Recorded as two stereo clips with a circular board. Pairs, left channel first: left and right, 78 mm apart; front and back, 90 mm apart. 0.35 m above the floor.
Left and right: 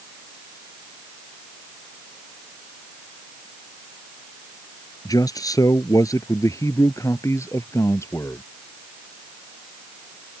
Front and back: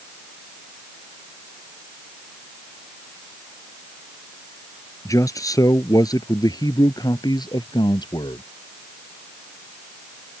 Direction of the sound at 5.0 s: 55° left.